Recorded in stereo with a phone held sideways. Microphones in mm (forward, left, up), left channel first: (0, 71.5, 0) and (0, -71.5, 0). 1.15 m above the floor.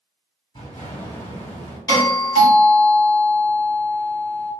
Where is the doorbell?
30° left (ahead or behind), 1.6 m.